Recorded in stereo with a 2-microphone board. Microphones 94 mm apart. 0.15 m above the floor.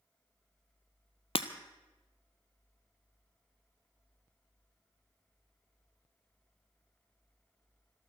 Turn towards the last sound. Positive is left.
turn(degrees=75)  # may be behind; listen again after turning